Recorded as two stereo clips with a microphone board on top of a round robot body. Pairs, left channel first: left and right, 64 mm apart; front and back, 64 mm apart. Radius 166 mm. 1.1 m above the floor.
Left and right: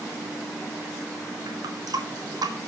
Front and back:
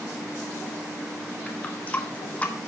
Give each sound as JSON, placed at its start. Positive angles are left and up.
{"t": 1.5, "sound": "a running tap", "azimuth_deg": -70, "distance_m": 1.6}